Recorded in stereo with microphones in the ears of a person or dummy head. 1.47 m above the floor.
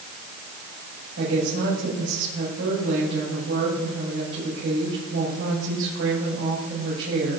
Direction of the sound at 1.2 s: 75° right (ahead or behind).